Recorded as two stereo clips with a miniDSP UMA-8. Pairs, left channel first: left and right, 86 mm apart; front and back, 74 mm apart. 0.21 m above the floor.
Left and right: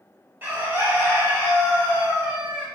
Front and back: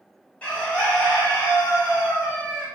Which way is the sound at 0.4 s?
55° right.